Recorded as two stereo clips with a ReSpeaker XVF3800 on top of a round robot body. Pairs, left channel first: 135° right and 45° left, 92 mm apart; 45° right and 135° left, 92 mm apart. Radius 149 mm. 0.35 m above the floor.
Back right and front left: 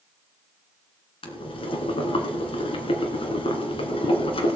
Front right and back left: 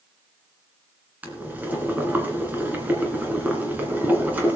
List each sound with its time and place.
1.2 s boiling: 150° right, 2 m